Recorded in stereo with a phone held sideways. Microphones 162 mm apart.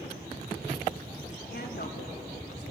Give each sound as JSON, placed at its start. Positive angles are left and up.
{"t": 1.5, "sound": "a woman speaking", "side_deg": 80, "distance_m": 3.0}